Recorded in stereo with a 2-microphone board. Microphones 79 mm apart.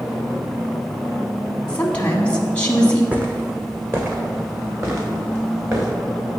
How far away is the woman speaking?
About 1.1 m.